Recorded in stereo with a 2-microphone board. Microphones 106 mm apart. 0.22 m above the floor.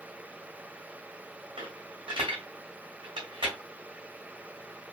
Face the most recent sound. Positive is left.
turn(degrees=-50)  # may be behind; listen again after turning